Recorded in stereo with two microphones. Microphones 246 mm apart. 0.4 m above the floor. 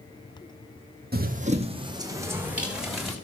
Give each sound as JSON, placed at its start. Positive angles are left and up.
{"t": 1.1, "sound": "running footsteps", "side_deg": -40, "distance_m": 1.0}